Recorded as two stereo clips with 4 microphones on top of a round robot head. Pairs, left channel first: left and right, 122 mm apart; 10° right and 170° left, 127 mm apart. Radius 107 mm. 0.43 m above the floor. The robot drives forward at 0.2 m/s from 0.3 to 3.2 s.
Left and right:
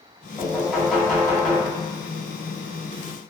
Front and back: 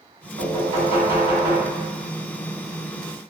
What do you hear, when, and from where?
0.4 s knocking: straight behind, 1.9 m